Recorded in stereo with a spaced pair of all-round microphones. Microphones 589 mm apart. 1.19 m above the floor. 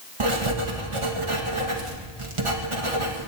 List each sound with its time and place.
0.2 s writing: 55° right (ahead or behind), 1.7 m